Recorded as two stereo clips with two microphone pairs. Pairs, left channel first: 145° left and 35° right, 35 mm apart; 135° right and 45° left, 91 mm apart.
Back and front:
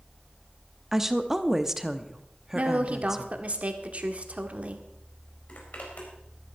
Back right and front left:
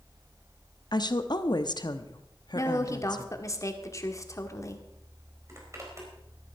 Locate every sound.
0.9 s a woman speaking: 115° right, 1.0 m
2.5 s a woman speaking: 85° right, 1.7 m
5.5 s a zipper: 100° left, 4 m